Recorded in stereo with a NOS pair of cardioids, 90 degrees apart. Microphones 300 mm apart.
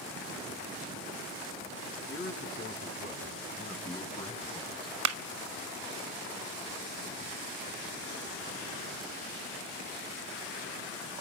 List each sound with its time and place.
2.1 s a man speaking: 40° left, 8 m; by 5.0 s 15° left, 5.5 m
5.0 s a clap: 60° right, 0.9 m